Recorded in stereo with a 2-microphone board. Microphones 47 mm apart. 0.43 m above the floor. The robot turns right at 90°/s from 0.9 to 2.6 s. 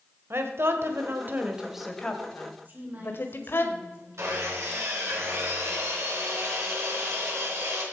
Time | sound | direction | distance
0.3 | a woman speaking | 60° right (ahead or behind) | 1.8 m
2.6 | a woman speaking | 40° right (ahead or behind) | 4.5 m
4.2 | sawing | 80° right | 5 m